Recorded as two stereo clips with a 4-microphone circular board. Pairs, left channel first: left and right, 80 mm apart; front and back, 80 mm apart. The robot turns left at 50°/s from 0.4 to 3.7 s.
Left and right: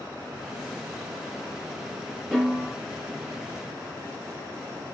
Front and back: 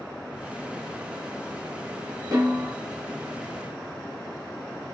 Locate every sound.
2.3 s a snare drum: 175° right, 1.7 m; by 2.8 s 160° left, 1.7 m